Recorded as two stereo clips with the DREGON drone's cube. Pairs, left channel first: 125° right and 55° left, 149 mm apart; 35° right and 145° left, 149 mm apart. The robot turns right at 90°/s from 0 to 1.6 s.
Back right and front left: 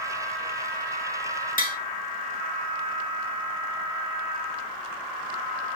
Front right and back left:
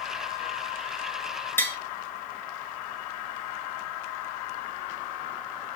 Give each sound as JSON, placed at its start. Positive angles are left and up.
{"t": 1.6, "sound": "tapping", "azimuth_deg": -110, "distance_m": 1.2}